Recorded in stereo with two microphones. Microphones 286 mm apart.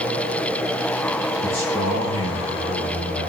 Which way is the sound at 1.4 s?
60° left (ahead or behind).